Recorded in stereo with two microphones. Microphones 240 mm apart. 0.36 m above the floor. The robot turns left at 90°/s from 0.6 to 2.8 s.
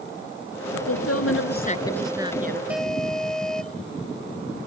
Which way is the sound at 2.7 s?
5° right (ahead or behind).